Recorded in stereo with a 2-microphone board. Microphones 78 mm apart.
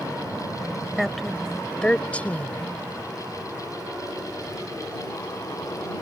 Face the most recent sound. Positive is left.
turn(degrees=25)  # may be behind; listen again after turning